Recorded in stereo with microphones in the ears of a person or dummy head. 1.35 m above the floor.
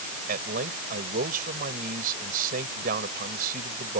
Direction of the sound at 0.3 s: 50° right (ahead or behind).